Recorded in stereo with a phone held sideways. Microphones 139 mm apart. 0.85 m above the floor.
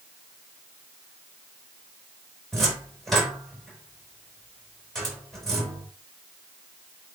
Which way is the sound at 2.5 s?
5° left (ahead or behind).